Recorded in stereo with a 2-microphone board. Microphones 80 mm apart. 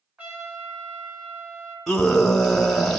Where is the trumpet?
20° right (ahead or behind), 2.5 m.